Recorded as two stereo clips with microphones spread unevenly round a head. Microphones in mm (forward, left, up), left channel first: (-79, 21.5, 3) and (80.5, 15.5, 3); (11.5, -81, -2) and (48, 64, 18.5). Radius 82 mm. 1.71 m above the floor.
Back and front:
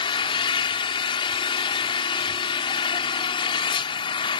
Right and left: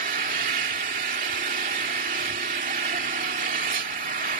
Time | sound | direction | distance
0.0 | an engine running | 120° left | ?